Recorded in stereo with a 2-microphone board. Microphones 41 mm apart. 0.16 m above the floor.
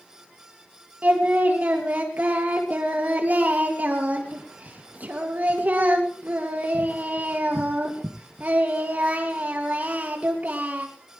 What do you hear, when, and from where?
1.0 s singing: 45° right (ahead or behind), 3.5 m